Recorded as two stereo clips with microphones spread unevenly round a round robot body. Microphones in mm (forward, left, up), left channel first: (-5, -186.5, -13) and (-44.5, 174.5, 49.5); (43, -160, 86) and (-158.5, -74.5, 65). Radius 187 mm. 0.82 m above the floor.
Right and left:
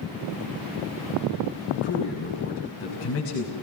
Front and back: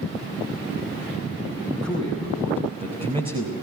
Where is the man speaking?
145° right, 6.5 m; by 3.5 s 135° right, 4.5 m.